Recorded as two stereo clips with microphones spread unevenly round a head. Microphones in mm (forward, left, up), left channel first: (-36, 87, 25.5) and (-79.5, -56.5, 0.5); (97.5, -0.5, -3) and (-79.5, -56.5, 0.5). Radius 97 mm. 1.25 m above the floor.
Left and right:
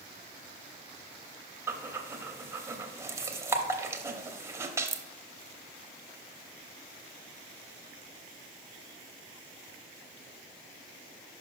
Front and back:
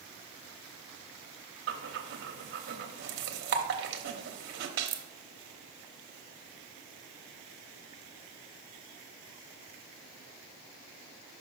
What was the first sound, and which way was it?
Breathing, 165° right.